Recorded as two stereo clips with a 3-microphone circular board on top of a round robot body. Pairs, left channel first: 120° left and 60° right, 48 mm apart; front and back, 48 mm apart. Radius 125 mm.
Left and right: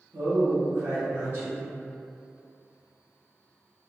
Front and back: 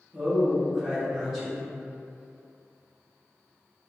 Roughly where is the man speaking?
Right.